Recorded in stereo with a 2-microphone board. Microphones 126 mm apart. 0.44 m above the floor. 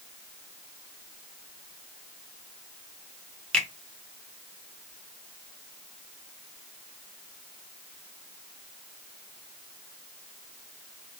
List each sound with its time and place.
3.5 s a finger snap: 10° left (ahead or behind), 0.8 m